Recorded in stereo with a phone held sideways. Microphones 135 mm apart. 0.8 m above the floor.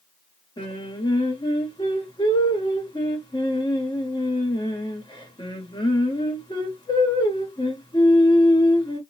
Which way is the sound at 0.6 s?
35° left (ahead or behind).